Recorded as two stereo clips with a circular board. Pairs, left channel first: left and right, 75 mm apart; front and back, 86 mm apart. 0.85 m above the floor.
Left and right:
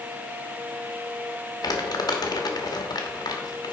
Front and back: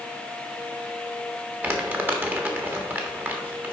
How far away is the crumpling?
About 1.2 m.